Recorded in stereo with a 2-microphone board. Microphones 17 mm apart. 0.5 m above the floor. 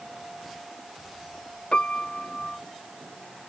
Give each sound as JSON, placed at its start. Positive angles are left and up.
{"t": 1.7, "sound": "a piano", "side_deg": 70}